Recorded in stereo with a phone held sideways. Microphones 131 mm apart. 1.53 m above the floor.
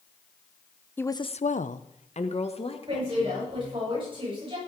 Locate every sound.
1.0 s a woman speaking: 15° left (ahead or behind), 0.9 m; by 3.9 s 40° left (ahead or behind), 4 m
2.9 s a woman speaking: 40° right (ahead or behind), 10 m